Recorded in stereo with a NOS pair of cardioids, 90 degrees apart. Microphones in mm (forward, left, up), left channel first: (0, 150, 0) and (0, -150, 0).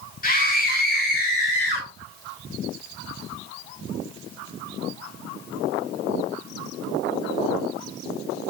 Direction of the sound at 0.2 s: 30° left.